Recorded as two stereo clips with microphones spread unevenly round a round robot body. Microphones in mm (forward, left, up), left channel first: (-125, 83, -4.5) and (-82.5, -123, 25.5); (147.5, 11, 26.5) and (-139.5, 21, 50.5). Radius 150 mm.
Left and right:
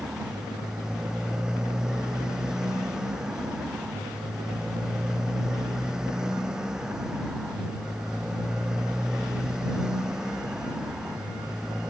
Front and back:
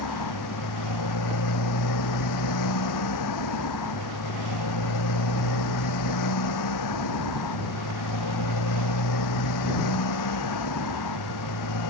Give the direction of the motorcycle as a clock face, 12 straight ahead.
12 o'clock.